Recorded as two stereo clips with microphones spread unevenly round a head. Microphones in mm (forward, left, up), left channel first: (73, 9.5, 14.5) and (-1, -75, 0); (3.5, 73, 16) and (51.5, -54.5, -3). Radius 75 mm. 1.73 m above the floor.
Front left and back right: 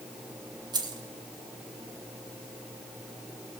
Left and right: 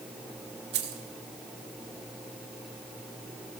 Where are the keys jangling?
80° right, 1.8 m.